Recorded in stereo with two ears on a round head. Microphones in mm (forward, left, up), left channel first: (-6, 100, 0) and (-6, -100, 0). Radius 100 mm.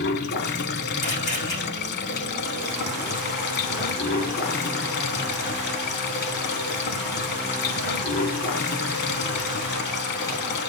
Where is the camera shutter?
35° left (ahead or behind), 5.5 m.